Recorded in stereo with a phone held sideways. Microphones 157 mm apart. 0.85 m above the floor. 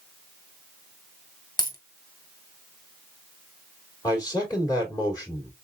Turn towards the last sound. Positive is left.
turn(degrees=25)  # may be behind; listen again after turning